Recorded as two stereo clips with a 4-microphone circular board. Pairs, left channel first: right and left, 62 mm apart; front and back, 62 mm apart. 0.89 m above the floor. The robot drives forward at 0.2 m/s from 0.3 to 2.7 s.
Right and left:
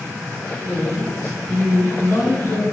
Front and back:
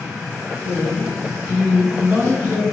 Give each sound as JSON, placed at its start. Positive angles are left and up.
{"t": 0.6, "sound": "a man speaking", "azimuth_deg": -125, "distance_m": 1.7}